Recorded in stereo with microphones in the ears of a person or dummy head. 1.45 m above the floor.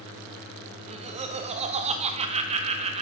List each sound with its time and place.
0.8 s laughter: 30° right (ahead or behind), 0.8 m